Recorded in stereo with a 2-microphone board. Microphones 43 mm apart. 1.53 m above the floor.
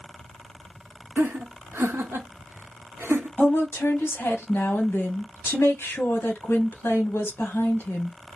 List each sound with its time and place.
1.2 s laughter: 75° right (ahead or behind), 0.9 m
3.4 s a woman speaking: 60° left (ahead or behind), 1.0 m